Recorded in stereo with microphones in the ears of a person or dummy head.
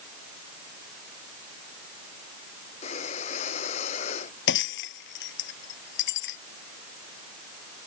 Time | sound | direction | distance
2.8 | breathing | 40° left (ahead or behind) | ?
4.5 | breaking glass | 60° left (ahead or behind) | ?